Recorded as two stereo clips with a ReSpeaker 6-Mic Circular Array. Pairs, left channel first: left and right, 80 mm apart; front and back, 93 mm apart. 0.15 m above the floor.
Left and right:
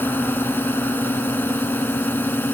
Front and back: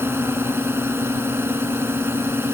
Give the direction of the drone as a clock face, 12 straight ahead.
7 o'clock.